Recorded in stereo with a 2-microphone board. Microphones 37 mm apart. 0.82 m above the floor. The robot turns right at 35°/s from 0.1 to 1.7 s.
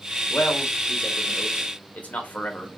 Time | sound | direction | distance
0.3 | a man speaking | 55° left (ahead or behind) | 0.8 m